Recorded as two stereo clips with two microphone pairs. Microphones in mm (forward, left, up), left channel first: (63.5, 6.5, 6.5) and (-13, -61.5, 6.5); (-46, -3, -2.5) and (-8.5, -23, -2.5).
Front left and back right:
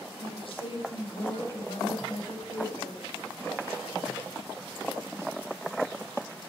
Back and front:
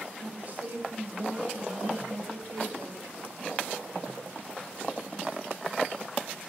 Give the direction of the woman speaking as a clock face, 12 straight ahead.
11 o'clock.